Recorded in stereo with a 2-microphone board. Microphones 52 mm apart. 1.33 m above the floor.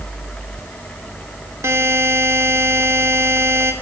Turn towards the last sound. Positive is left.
turn(degrees=-60)  # may be behind; listen again after turning